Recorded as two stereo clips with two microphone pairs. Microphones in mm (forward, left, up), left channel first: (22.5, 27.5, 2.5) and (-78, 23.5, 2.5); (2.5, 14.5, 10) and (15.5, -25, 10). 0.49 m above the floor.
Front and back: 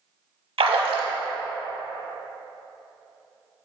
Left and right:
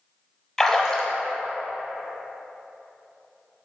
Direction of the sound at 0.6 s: 170° right.